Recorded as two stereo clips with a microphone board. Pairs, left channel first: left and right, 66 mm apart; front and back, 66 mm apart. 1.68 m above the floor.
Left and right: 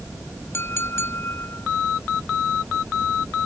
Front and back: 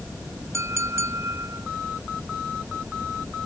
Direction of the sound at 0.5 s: 140° left.